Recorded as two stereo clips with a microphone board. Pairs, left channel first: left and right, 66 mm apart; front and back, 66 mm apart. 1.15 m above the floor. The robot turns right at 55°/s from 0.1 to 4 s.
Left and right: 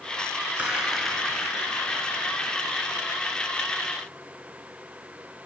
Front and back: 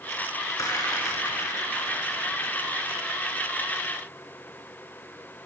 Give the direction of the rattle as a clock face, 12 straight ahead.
1 o'clock.